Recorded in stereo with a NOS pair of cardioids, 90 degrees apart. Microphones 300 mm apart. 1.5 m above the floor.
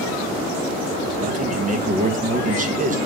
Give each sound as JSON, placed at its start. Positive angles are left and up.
{"t": 1.2, "sound": "a man speaking", "azimuth_deg": -25, "distance_m": 2.0}